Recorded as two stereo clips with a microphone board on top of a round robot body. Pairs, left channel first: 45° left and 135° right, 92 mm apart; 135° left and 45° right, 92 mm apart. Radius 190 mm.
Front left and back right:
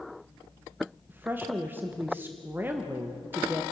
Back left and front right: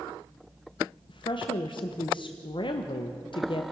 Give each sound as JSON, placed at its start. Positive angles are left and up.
{"t": 1.1, "sound": "a woman speaking", "azimuth_deg": 155, "distance_m": 1.3}